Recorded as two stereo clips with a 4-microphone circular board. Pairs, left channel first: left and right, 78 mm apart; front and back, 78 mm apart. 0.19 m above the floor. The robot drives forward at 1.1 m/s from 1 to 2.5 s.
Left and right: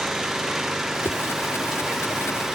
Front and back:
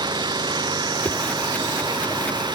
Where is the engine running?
175° right.